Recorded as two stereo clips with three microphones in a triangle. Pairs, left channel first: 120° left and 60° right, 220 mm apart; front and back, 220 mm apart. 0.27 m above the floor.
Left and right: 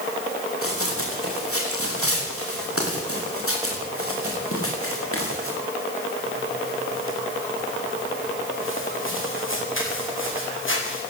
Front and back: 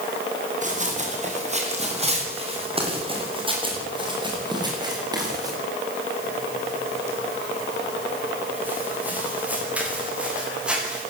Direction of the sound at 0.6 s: 125° left.